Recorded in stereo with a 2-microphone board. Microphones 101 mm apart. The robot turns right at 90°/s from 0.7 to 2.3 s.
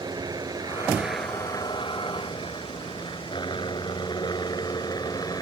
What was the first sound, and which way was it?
A helicopter, 40° right (ahead or behind).